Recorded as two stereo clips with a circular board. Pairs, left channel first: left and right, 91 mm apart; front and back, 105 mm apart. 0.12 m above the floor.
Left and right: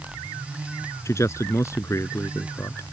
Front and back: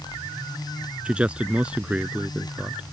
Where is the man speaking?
110° left.